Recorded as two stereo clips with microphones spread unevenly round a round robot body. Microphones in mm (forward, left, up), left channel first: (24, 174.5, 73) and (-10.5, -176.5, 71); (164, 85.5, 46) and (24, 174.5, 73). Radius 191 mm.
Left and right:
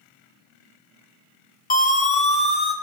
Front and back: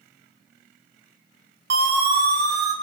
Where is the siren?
150° left, 3 m; by 2.7 s 160° left, 3.5 m.